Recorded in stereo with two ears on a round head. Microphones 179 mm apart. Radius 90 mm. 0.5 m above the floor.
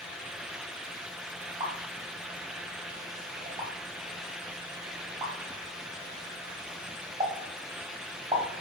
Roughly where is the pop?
Right.